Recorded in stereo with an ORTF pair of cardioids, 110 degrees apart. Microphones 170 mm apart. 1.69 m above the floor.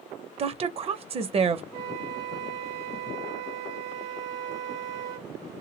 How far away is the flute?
About 1.3 m.